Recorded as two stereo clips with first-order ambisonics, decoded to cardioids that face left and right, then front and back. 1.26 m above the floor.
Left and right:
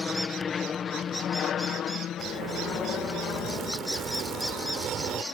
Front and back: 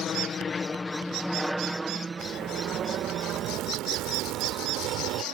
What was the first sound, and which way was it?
An aircraft, 30° left.